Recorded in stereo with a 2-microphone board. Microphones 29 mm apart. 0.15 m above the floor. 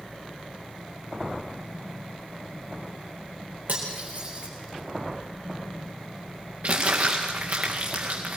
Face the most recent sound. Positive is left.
turn(degrees=-60)  # may be behind; listen again after turning